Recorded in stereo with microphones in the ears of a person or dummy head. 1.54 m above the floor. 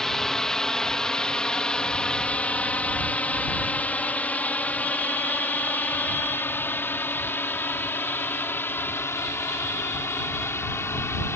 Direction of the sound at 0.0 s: 5° left (ahead or behind).